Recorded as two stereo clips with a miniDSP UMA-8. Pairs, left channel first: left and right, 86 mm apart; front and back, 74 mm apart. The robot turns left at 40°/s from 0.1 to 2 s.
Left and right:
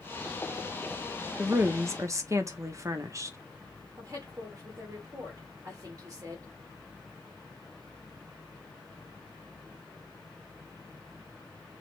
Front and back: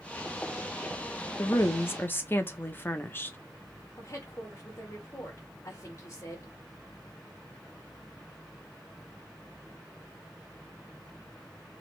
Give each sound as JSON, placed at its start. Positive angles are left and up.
{"t": 1.4, "sound": "a woman speaking", "azimuth_deg": -30, "distance_m": 0.8}
{"t": 4.0, "sound": "a woman speaking", "azimuth_deg": -45, "distance_m": 2.0}